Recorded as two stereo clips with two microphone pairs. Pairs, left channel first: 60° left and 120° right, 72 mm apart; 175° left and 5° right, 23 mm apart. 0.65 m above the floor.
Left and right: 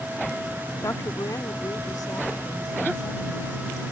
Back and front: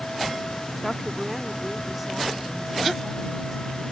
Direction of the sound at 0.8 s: 90° left.